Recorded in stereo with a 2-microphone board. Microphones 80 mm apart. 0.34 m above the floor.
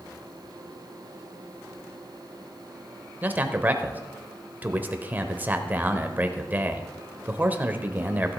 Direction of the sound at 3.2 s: 20° right (ahead or behind).